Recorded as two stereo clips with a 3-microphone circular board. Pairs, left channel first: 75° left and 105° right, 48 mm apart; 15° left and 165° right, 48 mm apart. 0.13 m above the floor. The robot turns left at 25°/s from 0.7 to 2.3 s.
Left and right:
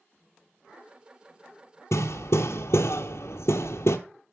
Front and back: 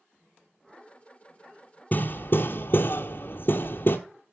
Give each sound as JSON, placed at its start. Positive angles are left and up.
{"t": 1.9, "sound": "hammering", "azimuth_deg": 65, "distance_m": 0.9}